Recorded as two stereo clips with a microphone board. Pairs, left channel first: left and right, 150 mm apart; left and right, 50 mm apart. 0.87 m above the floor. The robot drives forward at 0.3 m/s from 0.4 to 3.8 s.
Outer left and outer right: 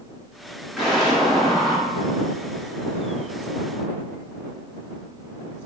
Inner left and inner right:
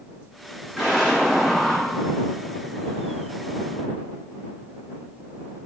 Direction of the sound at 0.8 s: 5° right (ahead or behind).